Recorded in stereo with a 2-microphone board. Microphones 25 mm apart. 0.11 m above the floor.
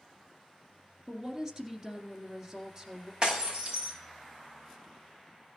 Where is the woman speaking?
25° right (ahead or behind), 2 m.